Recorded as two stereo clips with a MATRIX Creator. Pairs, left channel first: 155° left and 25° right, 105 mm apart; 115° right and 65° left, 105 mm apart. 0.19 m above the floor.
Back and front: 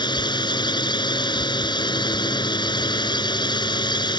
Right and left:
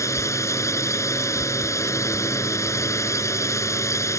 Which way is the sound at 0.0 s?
170° right.